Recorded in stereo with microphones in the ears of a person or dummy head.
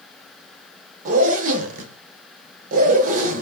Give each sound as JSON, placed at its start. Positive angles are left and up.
{"t": 1.1, "sound": "a zipper", "side_deg": -45, "distance_m": 0.5}